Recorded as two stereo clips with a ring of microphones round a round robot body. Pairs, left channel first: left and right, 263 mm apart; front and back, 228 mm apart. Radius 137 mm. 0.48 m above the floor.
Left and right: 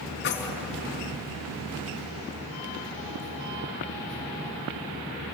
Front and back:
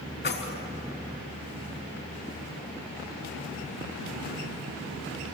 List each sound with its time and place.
0.2 s keys jangling: 40° left, 4 m